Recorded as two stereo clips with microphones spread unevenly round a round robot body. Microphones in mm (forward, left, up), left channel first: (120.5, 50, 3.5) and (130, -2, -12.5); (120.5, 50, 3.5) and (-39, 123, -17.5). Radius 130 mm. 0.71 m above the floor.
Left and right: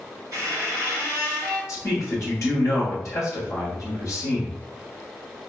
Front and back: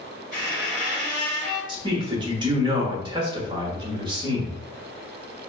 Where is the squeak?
100° right, 1.8 m.